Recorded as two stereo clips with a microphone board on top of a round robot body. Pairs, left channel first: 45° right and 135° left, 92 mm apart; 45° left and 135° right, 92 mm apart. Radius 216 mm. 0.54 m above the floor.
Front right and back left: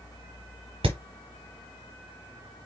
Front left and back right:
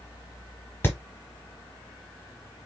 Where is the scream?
No scream in this recording.